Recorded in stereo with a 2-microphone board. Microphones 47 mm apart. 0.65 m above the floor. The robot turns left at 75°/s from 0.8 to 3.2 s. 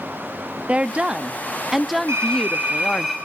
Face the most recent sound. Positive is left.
turn(degrees=180)